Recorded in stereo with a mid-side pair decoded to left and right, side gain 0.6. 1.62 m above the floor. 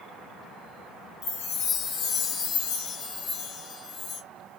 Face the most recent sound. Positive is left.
turn(degrees=65)